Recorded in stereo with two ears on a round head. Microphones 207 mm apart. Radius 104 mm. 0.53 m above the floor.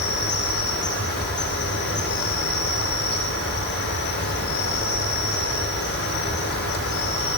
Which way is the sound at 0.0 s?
45° left (ahead or behind).